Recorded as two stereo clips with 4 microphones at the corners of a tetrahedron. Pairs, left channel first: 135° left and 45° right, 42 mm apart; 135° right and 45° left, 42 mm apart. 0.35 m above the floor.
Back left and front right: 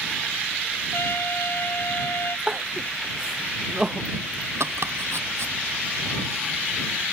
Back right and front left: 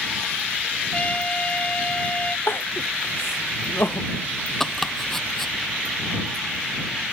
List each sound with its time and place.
0.9 s a trumpet: 165° left
2.5 s crying: 120° right
4.6 s chopping: 50° right